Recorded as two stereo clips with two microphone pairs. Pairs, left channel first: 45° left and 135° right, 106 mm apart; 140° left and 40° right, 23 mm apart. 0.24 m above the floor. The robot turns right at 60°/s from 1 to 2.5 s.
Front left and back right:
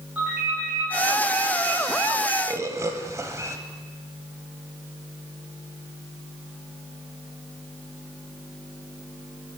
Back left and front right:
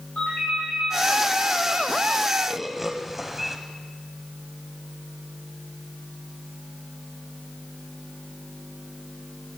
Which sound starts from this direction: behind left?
A ringtone, at 0.1 s.